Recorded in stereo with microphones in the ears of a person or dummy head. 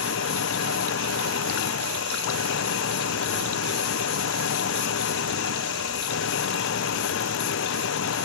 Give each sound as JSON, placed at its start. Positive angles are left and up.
{"t": 0.0, "sound": "an engine running", "side_deg": 65}